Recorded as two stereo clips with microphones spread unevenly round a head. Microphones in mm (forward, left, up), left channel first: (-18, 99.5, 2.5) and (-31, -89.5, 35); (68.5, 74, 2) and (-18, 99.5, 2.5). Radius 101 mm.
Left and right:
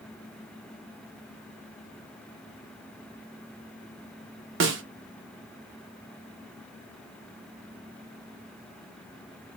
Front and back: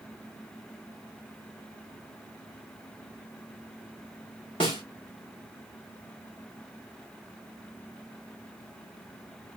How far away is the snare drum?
About 1.0 m.